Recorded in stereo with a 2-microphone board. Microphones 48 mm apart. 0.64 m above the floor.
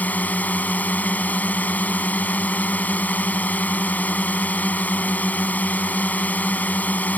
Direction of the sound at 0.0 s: 35° left (ahead or behind).